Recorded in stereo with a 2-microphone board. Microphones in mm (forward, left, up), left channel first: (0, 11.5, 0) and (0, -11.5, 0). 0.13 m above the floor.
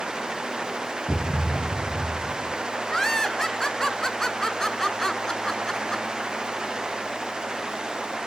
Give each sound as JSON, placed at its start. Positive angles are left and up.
{"t": 1.1, "sound": "a thud", "side_deg": 50, "distance_m": 3.5}
{"t": 2.9, "sound": "laughter", "side_deg": 20, "distance_m": 1.2}